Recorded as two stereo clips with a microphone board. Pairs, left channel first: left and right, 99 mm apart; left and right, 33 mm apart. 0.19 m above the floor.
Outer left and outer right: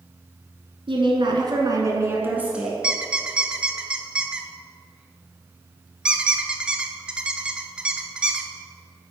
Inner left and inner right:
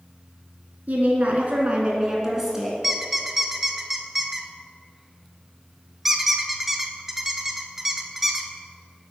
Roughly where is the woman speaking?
Right.